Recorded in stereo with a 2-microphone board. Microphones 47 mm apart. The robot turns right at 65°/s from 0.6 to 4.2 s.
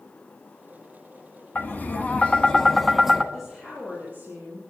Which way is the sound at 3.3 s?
Straight behind.